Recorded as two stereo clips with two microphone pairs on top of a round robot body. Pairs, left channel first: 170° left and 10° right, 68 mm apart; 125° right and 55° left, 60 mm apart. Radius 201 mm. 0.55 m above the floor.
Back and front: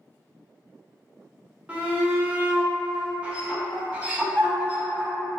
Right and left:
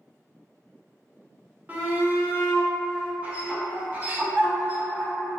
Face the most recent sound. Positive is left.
turn(degrees=35)